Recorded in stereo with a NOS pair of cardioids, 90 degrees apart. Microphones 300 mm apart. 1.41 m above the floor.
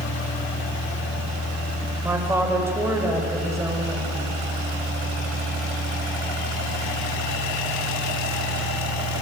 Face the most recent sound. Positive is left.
turn(degrees=-10)